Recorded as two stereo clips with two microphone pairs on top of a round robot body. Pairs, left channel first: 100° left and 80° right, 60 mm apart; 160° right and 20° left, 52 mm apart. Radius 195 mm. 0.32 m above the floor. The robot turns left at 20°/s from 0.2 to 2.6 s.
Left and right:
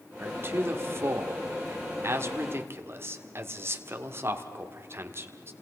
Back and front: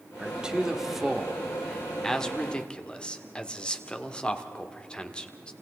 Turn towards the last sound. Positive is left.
turn(degrees=-95)